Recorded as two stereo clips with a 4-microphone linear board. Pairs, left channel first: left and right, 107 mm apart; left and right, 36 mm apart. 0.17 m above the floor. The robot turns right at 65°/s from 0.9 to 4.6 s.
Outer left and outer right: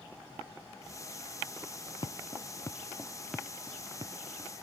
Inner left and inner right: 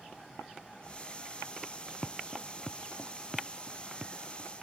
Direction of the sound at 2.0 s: 45° left (ahead or behind).